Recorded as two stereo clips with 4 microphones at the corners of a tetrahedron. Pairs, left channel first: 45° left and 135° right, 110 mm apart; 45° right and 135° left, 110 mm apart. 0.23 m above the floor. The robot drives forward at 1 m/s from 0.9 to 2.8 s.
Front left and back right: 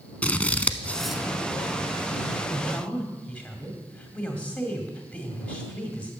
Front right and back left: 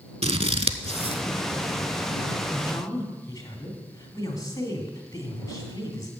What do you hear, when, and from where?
0.2 s scissors: 120° left, 0.5 m; by 1.2 s 145° left, 0.8 m
2.5 s a man speaking: 20° right, 2 m; by 6.1 s 25° right, 1.9 m